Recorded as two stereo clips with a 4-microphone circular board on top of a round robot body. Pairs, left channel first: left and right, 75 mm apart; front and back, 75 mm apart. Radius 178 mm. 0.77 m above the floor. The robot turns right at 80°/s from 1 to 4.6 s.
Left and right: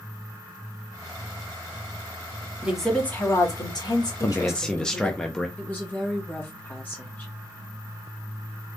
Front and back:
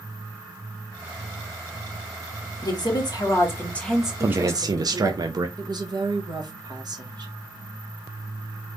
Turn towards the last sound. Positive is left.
turn(degrees=155)